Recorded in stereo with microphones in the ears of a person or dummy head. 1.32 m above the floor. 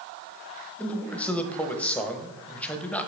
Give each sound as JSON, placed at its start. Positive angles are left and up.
{"t": 0.8, "sound": "a man speaking", "side_deg": 5, "distance_m": 1.0}